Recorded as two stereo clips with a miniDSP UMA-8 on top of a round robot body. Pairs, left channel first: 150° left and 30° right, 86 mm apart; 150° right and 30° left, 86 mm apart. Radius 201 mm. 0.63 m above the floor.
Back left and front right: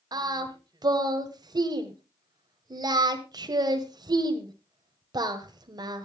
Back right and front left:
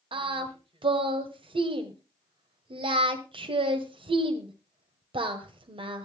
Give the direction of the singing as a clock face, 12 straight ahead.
12 o'clock.